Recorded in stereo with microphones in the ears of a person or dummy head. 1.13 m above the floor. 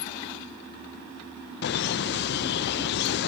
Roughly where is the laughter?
Left.